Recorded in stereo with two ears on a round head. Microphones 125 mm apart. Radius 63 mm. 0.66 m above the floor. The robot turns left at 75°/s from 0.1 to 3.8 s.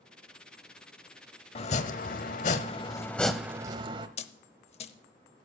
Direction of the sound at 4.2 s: 45° left (ahead or behind).